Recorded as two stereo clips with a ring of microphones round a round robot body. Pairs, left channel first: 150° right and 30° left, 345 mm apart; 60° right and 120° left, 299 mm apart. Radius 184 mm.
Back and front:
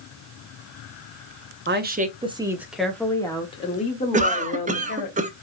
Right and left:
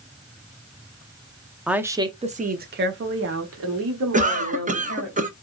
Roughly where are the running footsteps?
No running footsteps in this recording.